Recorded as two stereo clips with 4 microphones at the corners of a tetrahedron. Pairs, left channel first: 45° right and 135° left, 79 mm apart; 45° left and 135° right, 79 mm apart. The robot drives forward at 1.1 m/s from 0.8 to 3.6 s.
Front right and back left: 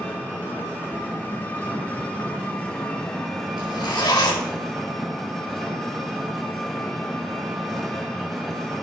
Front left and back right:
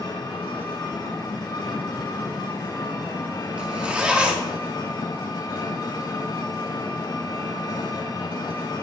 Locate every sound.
0.0 s an engine running: 20° left, 5.5 m; by 8.8 s 40° left, 3 m
3.6 s a zipper: 60° right, 2.5 m